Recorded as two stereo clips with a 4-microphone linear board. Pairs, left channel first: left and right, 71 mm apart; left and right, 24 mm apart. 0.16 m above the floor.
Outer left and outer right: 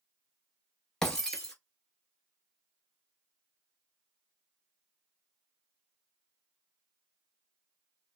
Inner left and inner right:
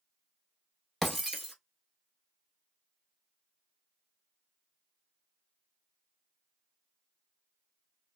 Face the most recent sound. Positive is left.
turn(degrees=5)  # may be behind; listen again after turning